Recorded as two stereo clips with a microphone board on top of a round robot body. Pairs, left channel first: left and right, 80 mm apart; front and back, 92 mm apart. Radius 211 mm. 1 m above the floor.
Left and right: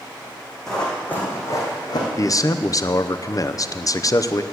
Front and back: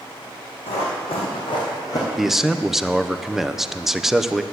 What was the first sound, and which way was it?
Running footsteps, 5° left.